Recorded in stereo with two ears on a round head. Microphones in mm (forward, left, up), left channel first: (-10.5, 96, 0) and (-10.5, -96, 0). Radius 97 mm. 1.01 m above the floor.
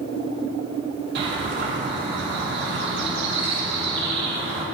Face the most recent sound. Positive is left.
turn(degrees=-55)  # may be behind; listen again after turning